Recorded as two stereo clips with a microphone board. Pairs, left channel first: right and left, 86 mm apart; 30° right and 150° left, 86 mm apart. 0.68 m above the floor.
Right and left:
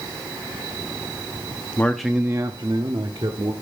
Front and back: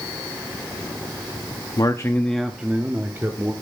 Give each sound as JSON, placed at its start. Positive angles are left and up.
{"t": 1.8, "sound": "a man speaking", "azimuth_deg": -30, "distance_m": 0.7}